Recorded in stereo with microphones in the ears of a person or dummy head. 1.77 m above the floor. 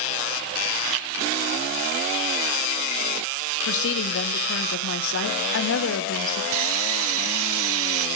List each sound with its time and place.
3.7 s a woman speaking: 65° left (ahead or behind), 1.2 m
6.5 s sawing: 75° right (ahead or behind), 0.7 m